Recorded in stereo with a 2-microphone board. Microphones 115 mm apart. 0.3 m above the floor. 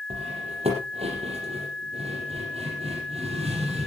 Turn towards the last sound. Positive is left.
turn(degrees=-65)  # may be behind; listen again after turning